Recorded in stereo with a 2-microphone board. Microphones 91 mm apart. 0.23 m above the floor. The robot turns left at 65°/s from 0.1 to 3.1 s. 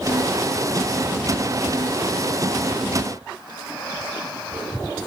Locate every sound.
Only background noise.